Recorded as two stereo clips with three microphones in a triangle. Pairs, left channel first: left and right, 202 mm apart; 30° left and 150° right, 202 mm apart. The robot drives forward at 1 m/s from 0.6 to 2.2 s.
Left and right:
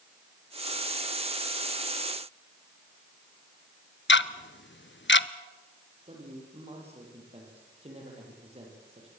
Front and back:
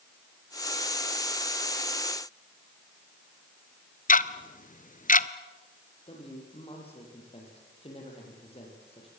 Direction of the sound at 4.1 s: 75° left.